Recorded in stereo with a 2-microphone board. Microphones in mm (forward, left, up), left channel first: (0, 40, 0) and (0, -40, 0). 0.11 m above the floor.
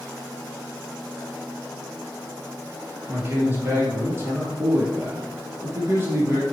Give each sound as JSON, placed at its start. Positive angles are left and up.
{"t": 3.1, "sound": "a man speaking", "side_deg": -30, "distance_m": 3.0}